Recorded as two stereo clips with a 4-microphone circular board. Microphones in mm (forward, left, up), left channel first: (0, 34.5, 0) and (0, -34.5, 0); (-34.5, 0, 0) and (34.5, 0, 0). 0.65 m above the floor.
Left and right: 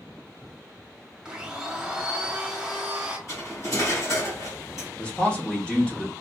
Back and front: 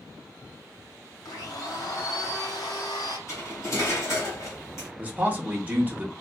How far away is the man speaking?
About 0.7 m.